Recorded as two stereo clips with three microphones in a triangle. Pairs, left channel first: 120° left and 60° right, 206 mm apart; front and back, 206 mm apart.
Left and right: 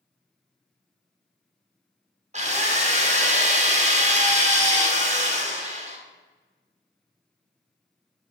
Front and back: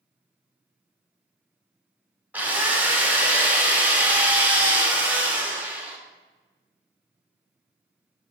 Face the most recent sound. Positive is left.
turn(degrees=-100)